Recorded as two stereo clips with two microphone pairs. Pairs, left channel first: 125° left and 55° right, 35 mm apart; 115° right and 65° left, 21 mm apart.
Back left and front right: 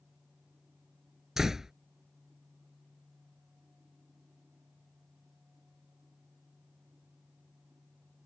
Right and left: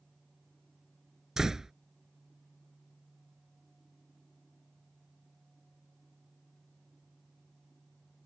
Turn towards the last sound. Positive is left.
turn(degrees=15)